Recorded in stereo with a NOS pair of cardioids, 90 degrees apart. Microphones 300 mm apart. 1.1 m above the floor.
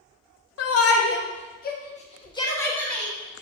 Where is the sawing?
No sawing in this recording.